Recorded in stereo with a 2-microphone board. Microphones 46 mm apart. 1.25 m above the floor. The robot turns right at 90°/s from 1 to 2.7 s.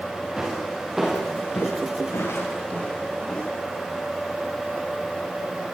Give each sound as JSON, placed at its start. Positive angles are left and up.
{"t": 0.4, "sound": "footsteps", "side_deg": -10, "distance_m": 9.5}